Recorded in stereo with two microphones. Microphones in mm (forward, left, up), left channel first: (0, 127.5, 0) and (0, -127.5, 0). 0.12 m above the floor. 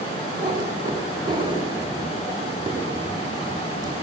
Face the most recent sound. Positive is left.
turn(degrees=-15)  # may be behind; listen again after turning